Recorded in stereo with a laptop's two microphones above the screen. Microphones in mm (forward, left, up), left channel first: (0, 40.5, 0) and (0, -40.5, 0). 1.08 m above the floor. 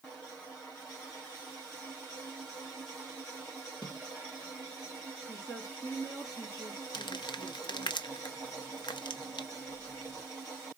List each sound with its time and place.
3.8 s a snare drum: 70° left (ahead or behind), 3 m
5.3 s a woman speaking: 55° left (ahead or behind), 2 m
6.9 s crumpling: 70° left (ahead or behind), 0.6 m